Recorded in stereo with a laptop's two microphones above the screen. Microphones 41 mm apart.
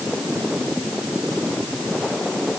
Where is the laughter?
No laughter in this recording.